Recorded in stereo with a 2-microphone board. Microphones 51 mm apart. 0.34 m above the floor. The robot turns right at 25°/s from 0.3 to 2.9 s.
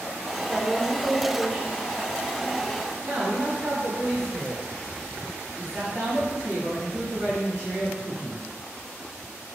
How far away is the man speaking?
About 2.0 m.